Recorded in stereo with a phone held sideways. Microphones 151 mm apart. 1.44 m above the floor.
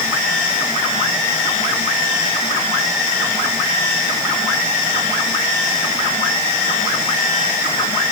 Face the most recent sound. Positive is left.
No sound to turn to.